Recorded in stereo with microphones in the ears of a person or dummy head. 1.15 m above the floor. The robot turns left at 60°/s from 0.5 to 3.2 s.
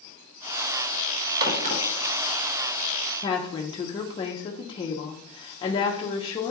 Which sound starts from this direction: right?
A crack, at 1.4 s.